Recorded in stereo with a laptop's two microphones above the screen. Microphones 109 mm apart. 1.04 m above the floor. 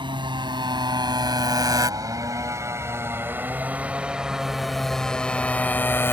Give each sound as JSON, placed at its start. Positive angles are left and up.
{"t": 0.0, "sound": "a motorcycle", "side_deg": -50}